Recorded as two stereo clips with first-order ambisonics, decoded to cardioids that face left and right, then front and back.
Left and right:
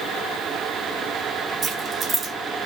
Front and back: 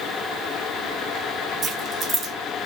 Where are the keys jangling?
135° right, 0.7 m.